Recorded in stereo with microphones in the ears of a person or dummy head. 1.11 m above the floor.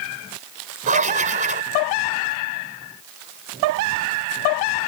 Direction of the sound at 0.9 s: 40° right (ahead or behind).